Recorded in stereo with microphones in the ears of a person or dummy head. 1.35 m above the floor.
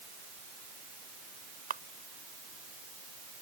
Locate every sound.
1.7 s a camera shutter: 40° right (ahead or behind)